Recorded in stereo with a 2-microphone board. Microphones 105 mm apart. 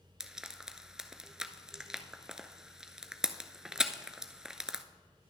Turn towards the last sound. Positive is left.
turn(degrees=-5)  # may be behind; listen again after turning